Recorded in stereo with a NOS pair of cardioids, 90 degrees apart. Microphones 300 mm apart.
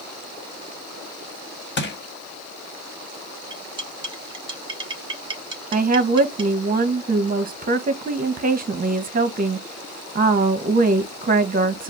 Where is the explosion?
I don't hear an explosion.